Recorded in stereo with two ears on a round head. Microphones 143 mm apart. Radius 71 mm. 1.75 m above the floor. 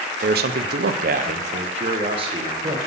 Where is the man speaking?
60° right (ahead or behind), 0.8 m; by 2.8 s 30° right (ahead or behind), 1.8 m.